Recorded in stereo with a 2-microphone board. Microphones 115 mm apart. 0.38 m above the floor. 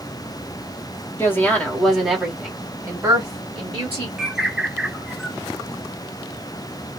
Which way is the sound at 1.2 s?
20° left (ahead or behind).